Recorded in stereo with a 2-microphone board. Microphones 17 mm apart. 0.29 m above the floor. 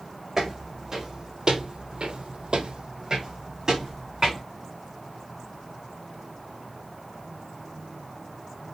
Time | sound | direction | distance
0.4 | footsteps | 20° right (ahead or behind) | 1.2 m